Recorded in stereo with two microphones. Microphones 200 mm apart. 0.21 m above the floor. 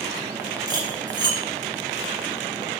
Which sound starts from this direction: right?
Cutlery clinking, at 0.7 s.